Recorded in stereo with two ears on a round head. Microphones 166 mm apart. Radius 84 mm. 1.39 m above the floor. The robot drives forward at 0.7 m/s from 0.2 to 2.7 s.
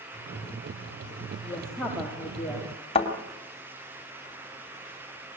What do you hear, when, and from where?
1.4 s a woman speaking: 5° left (ahead or behind), 3.5 m
3.0 s a thud: 35° left (ahead or behind), 3 m